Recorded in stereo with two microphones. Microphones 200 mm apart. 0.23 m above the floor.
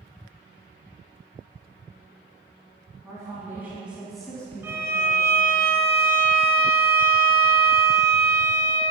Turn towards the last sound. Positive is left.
turn(degrees=-10)  # may be behind; listen again after turning